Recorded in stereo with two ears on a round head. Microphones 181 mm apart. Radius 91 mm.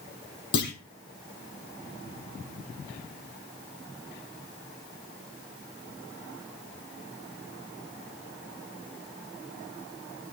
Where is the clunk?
55° left (ahead or behind), 5.5 m.